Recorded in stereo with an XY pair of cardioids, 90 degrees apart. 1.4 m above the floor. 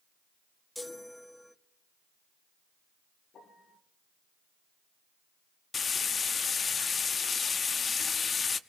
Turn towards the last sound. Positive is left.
turn(degrees=45)